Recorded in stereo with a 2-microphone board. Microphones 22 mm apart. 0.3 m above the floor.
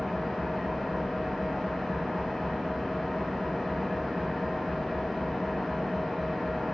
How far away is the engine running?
About 0.8 m.